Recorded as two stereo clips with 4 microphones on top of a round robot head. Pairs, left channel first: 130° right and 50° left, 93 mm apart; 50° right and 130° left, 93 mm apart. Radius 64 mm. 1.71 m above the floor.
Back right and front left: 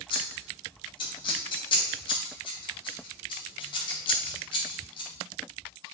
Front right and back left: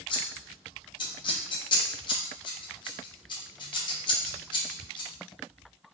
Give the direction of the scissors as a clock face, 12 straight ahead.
3 o'clock.